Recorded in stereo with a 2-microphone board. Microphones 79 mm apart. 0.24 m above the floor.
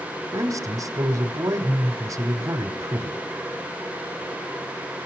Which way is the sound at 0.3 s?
45° right (ahead or behind).